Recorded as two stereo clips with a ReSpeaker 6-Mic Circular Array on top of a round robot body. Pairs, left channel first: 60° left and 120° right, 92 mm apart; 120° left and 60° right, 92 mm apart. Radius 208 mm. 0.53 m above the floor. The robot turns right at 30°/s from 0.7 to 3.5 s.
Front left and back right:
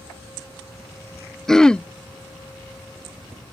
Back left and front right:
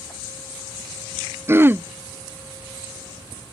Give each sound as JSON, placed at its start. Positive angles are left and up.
{"t": 1.5, "sound": "throat clearing", "azimuth_deg": -20}